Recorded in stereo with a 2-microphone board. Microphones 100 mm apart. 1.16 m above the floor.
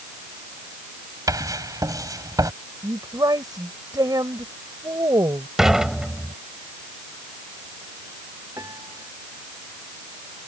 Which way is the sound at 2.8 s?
40° right (ahead or behind).